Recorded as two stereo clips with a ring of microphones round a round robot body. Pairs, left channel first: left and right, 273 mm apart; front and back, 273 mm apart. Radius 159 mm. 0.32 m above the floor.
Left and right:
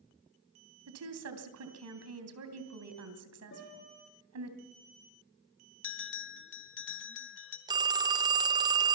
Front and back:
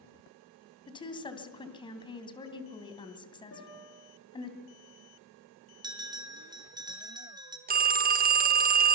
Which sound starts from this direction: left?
A bell, at 5.8 s.